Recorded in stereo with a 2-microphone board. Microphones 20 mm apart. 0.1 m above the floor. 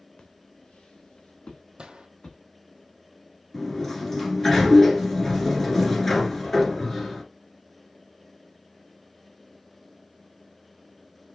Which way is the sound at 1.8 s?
60° right (ahead or behind).